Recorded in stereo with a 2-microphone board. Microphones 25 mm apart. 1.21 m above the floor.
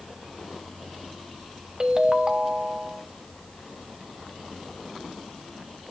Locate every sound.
1.8 s a ringtone: 35° right (ahead or behind), 0.6 m